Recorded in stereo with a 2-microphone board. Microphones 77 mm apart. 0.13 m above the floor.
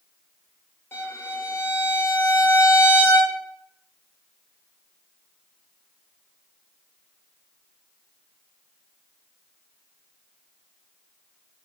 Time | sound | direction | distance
0.9 | a violin | 25° left (ahead or behind) | 0.8 m